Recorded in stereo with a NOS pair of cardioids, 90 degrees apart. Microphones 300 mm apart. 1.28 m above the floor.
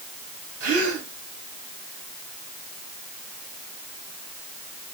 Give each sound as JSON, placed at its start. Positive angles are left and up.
{"t": 0.6, "sound": "a gasp", "azimuth_deg": -55, "distance_m": 4.5}